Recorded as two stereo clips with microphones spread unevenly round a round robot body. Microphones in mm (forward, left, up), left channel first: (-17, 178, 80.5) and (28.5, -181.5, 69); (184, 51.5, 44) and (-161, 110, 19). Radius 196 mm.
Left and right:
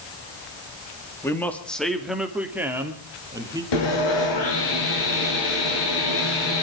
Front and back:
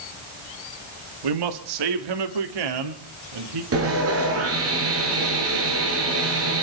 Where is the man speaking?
Straight behind, 2 m; by 3.6 s 165° right, 3 m.